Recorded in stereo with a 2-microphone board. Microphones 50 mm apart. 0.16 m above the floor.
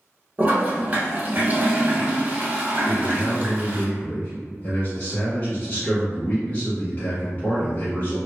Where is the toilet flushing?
30° right (ahead or behind), 0.9 m.